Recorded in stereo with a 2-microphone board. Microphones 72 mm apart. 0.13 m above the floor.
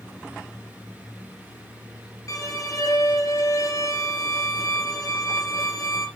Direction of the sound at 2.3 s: 50° left (ahead or behind).